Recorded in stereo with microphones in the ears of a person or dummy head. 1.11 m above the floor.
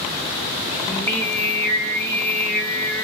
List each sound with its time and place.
0.9 s singing: 5° left (ahead or behind), 0.9 m